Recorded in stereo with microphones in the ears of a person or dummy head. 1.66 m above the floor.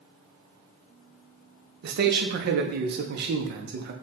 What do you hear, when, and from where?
1.8 s a man speaking: 60° right (ahead or behind), 0.6 m